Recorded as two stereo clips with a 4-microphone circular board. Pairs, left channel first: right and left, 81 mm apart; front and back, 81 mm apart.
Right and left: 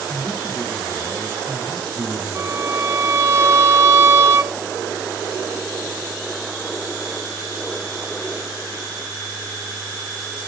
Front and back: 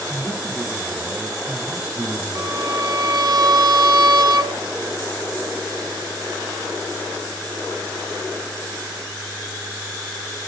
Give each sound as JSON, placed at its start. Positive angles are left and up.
{"t": 0.1, "sound": "a man speaking", "azimuth_deg": -125, "distance_m": 0.9}
{"t": 2.4, "sound": "a violin", "azimuth_deg": 145, "distance_m": 0.9}